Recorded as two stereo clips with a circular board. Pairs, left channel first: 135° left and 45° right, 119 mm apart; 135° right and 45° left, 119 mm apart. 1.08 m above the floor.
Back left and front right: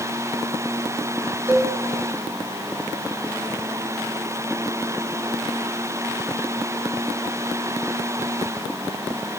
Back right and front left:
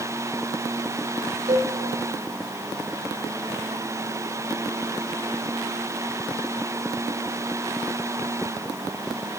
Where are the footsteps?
I don't hear footsteps.